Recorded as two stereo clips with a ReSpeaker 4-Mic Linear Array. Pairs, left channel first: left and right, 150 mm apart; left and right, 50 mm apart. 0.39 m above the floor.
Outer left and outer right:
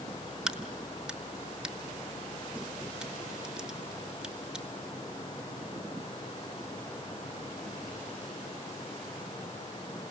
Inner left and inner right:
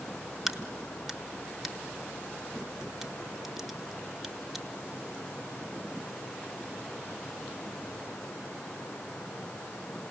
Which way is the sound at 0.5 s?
5° right (ahead or behind).